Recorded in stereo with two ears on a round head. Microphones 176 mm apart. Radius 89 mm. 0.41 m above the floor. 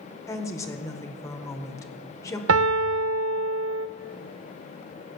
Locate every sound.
0.3 s a woman speaking: 15° left (ahead or behind), 1.3 m
2.5 s a piano: 75° right (ahead or behind), 0.7 m